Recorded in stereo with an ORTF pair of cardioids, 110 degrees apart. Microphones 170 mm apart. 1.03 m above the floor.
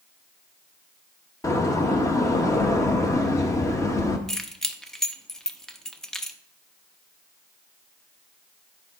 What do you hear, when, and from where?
1.4 s a door slam: 20° left, 1.0 m
4.3 s keys jangling: 5° left, 0.6 m